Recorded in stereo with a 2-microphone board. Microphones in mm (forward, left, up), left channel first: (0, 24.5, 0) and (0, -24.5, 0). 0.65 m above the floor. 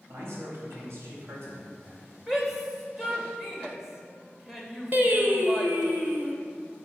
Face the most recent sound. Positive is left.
turn(degrees=-40)  # may be behind; listen again after turning